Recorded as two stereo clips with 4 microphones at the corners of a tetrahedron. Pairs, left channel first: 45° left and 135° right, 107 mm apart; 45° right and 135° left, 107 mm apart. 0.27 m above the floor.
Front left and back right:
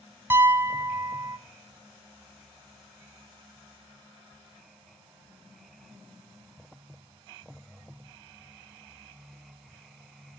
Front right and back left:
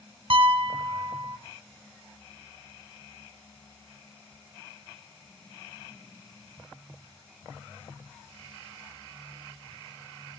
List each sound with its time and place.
0.3 s a piano: 155° left, 0.7 m